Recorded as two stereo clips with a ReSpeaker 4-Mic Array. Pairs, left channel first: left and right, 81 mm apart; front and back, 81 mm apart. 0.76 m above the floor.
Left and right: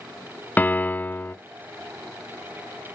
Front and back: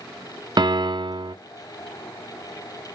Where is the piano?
155° left, 0.7 m.